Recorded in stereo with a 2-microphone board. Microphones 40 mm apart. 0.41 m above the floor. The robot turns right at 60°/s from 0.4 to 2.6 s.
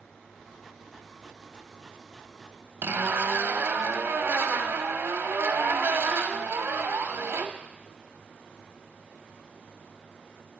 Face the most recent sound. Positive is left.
turn(degrees=-70)  # may be behind; listen again after turning